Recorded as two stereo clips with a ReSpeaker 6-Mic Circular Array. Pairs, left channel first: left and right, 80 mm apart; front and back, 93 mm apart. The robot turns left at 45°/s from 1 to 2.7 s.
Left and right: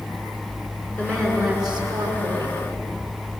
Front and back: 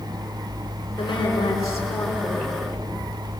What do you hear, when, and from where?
1.0 s a woman speaking: 25° right, 6.5 m; by 2.6 s 95° right, 6.5 m